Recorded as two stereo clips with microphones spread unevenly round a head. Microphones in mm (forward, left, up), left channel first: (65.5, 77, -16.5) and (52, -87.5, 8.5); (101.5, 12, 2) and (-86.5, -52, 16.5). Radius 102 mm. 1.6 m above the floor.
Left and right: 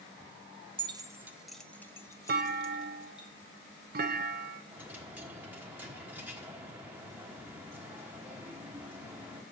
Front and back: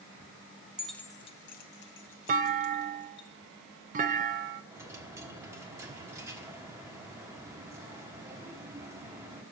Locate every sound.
0.8 s keys jangling: 85° right, 0.6 m; by 3.3 s 20° left, 1.6 m
2.3 s a clunk: 115° right, 0.5 m
4.7 s a dropped coin: 125° right, 1.2 m